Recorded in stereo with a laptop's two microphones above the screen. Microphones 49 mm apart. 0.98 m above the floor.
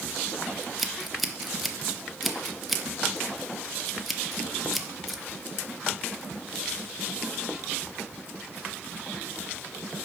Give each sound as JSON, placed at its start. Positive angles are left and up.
{"t": 0.6, "sound": "scissors", "side_deg": 0, "distance_m": 0.8}